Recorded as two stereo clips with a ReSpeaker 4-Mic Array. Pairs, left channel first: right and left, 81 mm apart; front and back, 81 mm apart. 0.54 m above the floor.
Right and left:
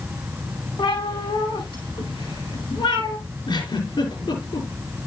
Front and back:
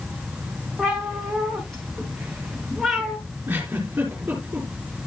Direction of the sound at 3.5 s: 110° right.